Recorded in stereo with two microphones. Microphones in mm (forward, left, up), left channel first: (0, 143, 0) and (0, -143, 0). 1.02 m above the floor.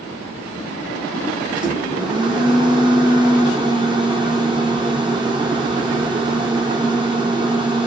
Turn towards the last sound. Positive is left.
turn(degrees=-15)  # may be behind; listen again after turning